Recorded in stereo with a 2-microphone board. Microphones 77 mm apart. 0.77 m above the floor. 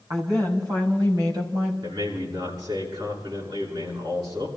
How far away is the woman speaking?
About 5 m.